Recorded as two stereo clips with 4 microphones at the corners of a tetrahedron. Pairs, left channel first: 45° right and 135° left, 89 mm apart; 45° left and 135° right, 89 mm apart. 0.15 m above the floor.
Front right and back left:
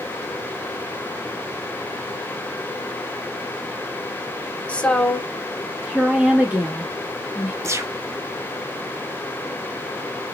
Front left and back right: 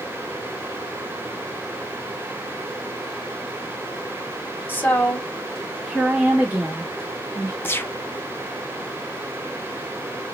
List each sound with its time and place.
4.7 s a woman speaking: 10° left, 1.2 m; by 7.5 s straight behind, 1.6 m
7.6 s a gunshot: 100° left, 0.5 m